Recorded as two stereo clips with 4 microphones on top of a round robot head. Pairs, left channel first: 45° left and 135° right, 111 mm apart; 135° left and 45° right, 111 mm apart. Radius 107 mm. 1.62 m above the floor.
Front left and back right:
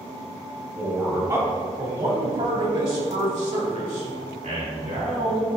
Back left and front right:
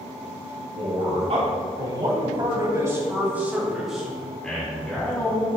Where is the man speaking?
65° right, 3 m; by 5.5 s 150° right, 4 m.